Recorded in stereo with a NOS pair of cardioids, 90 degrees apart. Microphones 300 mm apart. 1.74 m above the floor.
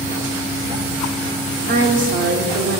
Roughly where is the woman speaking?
Ahead right.